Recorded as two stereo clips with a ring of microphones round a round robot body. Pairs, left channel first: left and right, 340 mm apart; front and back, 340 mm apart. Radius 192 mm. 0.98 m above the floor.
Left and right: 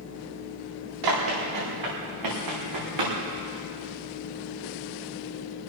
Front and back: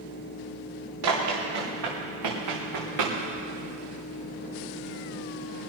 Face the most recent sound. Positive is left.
turn(degrees=-135)